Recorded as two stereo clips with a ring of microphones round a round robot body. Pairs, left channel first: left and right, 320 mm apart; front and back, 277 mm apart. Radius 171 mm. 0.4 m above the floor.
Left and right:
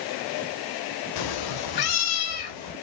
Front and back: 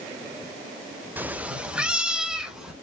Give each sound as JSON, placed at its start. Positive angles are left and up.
{"t": 1.2, "sound": "a cat meowing", "azimuth_deg": 95, "distance_m": 0.7}